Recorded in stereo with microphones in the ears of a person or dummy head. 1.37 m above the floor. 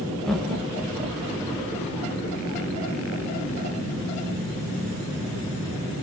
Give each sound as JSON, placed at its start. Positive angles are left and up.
{"t": 0.2, "sound": "laughter", "side_deg": 5, "distance_m": 0.5}